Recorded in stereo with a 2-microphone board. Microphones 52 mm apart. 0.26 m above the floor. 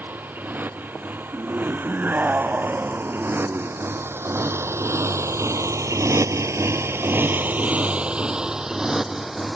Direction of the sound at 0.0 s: 35° right (ahead or behind).